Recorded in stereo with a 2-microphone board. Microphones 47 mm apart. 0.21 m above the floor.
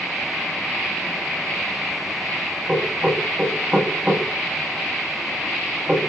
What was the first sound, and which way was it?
Knocking, 20° right (ahead or behind).